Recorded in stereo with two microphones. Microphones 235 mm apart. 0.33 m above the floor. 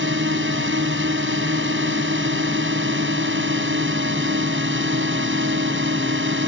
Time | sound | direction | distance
0.0 | a drone | 60° right (ahead or behind) | ?